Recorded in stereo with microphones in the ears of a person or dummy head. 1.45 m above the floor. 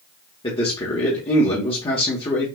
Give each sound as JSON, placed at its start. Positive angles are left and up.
{"t": 0.4, "sound": "a man speaking", "side_deg": 30, "distance_m": 0.9}